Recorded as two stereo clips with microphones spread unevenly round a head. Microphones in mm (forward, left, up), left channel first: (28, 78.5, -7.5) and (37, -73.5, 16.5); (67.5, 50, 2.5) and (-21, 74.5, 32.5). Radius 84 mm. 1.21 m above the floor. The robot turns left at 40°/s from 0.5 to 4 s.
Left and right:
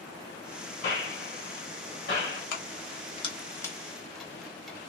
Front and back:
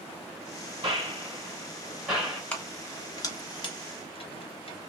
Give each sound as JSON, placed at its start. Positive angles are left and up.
{"t": 0.8, "sound": "a gunshot", "azimuth_deg": 135, "distance_m": 3.0}
{"t": 2.5, "sound": "keys jangling", "azimuth_deg": 65, "distance_m": 1.1}